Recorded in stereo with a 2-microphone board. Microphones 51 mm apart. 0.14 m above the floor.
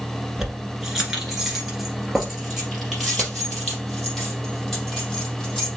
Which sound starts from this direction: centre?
Keys jangling, at 0.4 s.